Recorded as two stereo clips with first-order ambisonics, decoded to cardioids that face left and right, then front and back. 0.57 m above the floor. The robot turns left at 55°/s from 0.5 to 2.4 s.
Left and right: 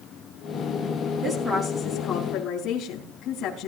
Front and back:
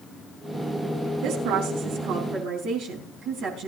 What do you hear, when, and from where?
1.2 s a woman speaking: 155° right, 4.5 m; by 3.7 s 140° left, 4.5 m